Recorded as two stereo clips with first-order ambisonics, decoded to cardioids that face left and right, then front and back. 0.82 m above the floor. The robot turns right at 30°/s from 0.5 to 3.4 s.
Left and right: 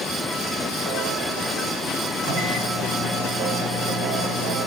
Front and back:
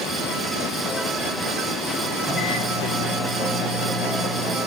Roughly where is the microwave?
Right.